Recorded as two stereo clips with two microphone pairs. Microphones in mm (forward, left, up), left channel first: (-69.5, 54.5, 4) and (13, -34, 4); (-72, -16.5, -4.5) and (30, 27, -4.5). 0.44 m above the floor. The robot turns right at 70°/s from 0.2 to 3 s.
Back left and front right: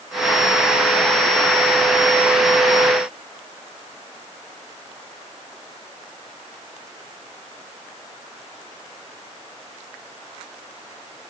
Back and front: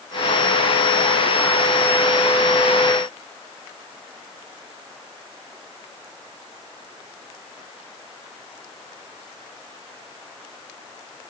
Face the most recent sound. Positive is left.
No sound to turn to.